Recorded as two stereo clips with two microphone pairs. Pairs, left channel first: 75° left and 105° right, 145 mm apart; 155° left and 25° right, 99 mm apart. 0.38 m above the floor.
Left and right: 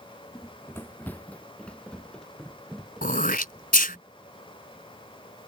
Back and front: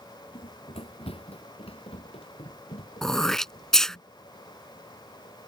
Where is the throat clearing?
70° left.